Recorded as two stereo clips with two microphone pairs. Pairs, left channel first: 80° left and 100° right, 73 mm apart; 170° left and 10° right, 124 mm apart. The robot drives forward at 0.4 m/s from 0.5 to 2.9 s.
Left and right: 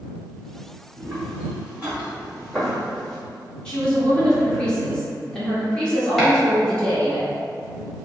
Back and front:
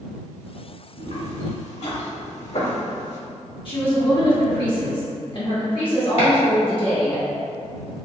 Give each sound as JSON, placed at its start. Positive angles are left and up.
{"t": 1.0, "sound": "footsteps", "azimuth_deg": -170, "distance_m": 1.9}
{"t": 3.6, "sound": "a woman speaking", "azimuth_deg": 150, "distance_m": 1.3}
{"t": 6.2, "sound": "chopping", "azimuth_deg": 165, "distance_m": 1.8}